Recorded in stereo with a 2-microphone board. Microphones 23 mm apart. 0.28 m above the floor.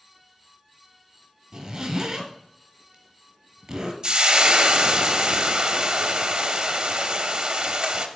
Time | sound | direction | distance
1.5 | a zipper | 30° right (ahead or behind) | 1.1 m
4.0 | frying | 35° right (ahead or behind) | 0.6 m